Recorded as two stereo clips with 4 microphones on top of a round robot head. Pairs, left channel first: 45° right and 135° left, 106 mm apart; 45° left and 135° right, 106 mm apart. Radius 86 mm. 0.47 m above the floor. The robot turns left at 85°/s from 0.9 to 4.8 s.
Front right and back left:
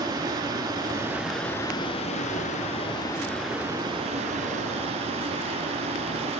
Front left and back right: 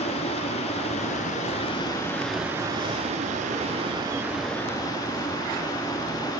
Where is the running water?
80° left, 1.2 m; by 6.4 s 110° left, 1.2 m.